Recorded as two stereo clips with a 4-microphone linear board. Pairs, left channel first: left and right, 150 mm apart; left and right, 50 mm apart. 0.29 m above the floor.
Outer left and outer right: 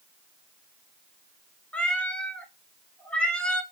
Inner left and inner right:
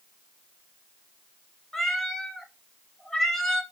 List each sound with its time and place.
1.7 s a cat meowing: 5° left (ahead or behind), 0.8 m